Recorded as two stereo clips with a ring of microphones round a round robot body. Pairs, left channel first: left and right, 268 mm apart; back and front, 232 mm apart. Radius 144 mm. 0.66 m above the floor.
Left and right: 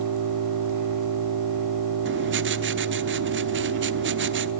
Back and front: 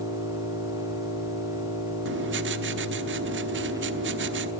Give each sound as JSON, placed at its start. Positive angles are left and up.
{"t": 0.0, "sound": "an engine running", "azimuth_deg": -80, "distance_m": 3.5}
{"t": 2.0, "sound": "writing", "azimuth_deg": -40, "distance_m": 1.0}